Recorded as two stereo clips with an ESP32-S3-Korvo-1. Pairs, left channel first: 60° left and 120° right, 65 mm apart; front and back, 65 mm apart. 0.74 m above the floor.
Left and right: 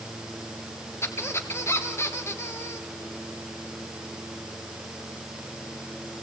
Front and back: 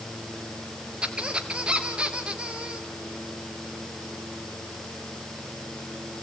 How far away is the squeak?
About 2 m.